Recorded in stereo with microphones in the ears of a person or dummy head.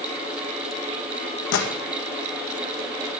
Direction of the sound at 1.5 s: 70° left (ahead or behind).